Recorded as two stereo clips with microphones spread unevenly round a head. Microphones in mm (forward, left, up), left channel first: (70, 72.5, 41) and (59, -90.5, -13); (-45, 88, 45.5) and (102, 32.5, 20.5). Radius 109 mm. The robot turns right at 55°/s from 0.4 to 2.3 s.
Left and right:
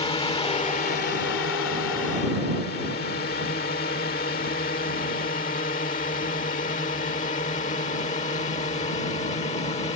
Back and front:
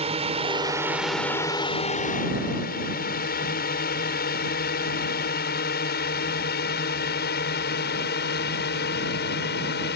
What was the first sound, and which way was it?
A drone, 30° left.